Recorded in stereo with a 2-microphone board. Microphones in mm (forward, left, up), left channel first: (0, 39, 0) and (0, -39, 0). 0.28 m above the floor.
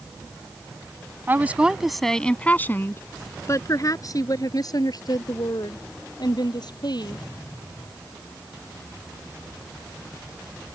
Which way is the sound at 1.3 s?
25° right (ahead or behind).